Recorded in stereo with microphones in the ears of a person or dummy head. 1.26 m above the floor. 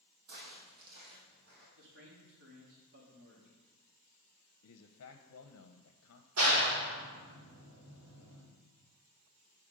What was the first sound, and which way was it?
Footsteps, 60° right (ahead or behind).